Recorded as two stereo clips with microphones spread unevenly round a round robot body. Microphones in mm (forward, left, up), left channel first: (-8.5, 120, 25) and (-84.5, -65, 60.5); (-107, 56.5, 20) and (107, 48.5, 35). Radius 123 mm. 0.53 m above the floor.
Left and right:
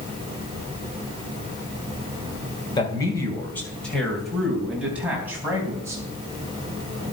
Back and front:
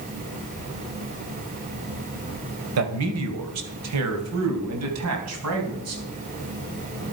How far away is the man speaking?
About 2.5 m.